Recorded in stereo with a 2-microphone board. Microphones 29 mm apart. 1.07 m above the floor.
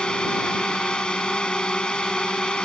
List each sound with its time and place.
0.0 s a drone: 30° left (ahead or behind)